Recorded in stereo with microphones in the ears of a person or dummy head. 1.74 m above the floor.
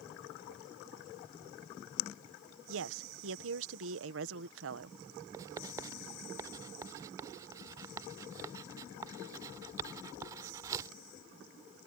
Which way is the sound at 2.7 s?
80° right.